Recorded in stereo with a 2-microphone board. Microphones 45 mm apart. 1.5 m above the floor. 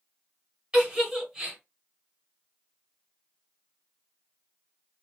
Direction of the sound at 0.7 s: 20° right (ahead or behind).